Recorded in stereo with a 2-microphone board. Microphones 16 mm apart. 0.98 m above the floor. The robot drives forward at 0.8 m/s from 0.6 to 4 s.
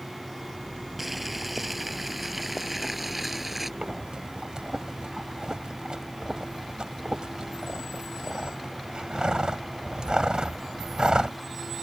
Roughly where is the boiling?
Centre.